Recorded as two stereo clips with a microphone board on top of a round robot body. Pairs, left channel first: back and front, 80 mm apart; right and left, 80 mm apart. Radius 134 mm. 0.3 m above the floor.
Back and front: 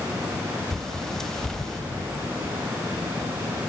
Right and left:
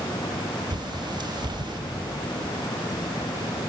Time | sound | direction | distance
0.7 | a bird | 95° left | 1.9 m